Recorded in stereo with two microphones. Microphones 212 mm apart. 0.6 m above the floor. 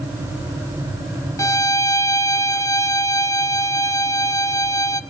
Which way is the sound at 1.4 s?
15° left (ahead or behind).